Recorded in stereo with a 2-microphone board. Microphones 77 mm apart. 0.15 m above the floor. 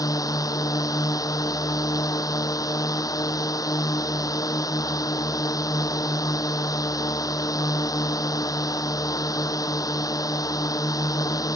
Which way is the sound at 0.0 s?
50° left (ahead or behind).